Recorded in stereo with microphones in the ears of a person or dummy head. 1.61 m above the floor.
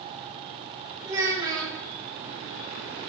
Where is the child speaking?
20° right (ahead or behind), 2.5 m.